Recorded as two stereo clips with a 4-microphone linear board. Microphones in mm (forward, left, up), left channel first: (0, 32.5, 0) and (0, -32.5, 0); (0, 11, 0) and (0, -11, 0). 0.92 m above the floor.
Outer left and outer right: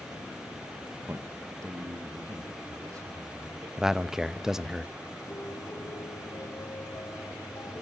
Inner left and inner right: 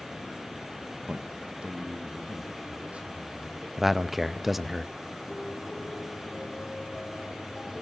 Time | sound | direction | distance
1.1 | a man speaking | 40° right (ahead or behind) | 0.8 m
3.8 | a man speaking | 10° right (ahead or behind) | 0.5 m
5.3 | a piano | 65° left (ahead or behind) | 1.9 m